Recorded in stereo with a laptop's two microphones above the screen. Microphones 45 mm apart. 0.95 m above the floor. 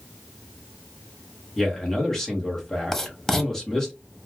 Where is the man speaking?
10° left (ahead or behind), 0.9 m.